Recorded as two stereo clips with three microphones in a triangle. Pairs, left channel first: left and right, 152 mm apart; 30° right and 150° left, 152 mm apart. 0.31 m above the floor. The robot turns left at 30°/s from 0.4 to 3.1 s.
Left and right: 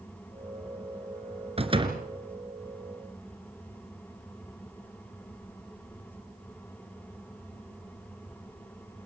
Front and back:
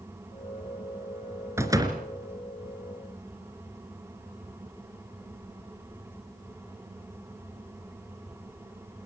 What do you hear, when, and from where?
1.6 s a door slam: 140° right, 2.5 m; by 2.0 s 150° right, 2.5 m